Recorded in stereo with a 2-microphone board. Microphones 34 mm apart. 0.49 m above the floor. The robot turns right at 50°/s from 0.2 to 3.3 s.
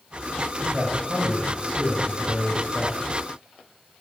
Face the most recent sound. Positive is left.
turn(degrees=5)